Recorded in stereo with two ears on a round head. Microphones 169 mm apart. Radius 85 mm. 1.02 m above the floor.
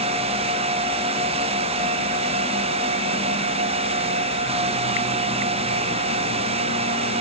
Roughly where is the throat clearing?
I don't hear throat clearing.